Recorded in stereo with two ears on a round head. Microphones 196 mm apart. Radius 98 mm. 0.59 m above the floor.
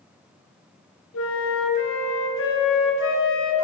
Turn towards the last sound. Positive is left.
turn(degrees=65)  # may be behind; listen again after turning